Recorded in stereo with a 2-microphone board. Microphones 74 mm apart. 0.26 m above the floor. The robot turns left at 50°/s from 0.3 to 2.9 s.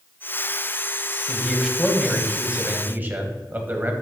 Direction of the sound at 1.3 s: 20° left.